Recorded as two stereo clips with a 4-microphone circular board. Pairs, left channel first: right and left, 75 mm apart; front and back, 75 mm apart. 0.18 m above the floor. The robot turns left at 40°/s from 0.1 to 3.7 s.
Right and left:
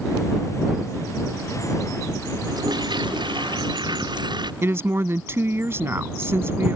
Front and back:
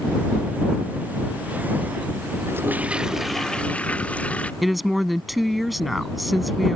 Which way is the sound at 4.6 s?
90° left.